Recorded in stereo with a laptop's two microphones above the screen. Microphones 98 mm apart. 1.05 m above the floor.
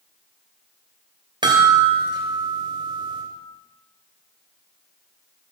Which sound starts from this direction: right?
A chime, at 1.4 s.